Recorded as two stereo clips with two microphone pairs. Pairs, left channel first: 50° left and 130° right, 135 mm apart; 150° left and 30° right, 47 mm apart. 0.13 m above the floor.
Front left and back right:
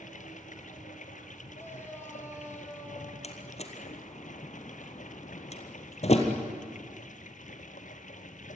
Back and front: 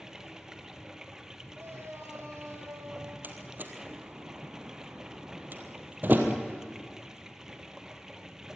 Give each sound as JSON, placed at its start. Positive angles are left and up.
{"t": 0.0, "sound": "running water", "azimuth_deg": 50, "distance_m": 1.2}
{"t": 1.6, "sound": "a shout", "azimuth_deg": -20, "distance_m": 6.0}
{"t": 3.2, "sound": "a door slam", "azimuth_deg": 15, "distance_m": 2.0}